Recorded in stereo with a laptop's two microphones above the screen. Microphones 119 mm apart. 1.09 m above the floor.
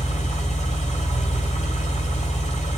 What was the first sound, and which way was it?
An engine running, 80° left.